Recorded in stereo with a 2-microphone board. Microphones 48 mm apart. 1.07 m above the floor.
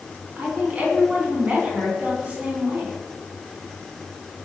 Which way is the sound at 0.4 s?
30° right (ahead or behind).